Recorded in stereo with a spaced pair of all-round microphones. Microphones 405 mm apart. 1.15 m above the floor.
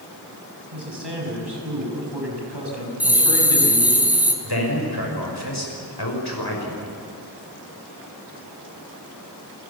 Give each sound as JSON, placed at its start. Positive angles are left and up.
{"t": 0.7, "sound": "a man speaking", "side_deg": -85, "distance_m": 7.0}
{"t": 3.0, "sound": "a bell", "side_deg": -5, "distance_m": 3.0}
{"t": 4.4, "sound": "a man speaking", "side_deg": 70, "distance_m": 6.0}